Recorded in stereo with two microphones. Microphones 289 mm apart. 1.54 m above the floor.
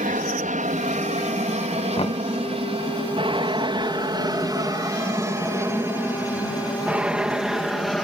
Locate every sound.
0.0 s an aircraft: 25° right (ahead or behind); by 8.1 s centre (ahead or behind)
2.0 s knocking: 20° left (ahead or behind)